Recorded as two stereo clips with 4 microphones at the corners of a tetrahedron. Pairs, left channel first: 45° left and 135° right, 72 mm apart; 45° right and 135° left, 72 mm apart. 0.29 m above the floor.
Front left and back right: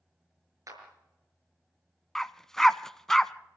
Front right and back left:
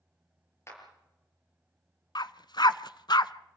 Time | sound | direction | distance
0.7 | a clap | 95° right | 5.5 m
2.1 | a dog barking | 40° right | 0.6 m